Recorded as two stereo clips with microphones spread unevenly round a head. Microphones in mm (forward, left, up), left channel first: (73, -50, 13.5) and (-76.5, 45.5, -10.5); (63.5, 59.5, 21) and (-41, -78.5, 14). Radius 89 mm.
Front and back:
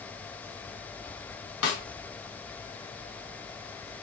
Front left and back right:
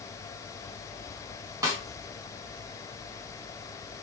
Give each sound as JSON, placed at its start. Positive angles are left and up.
{"t": 1.6, "sound": "a snare drum", "azimuth_deg": -55, "distance_m": 1.2}